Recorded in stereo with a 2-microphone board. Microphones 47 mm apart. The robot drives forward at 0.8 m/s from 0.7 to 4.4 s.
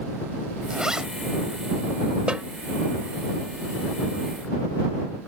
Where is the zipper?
15° right (ahead or behind).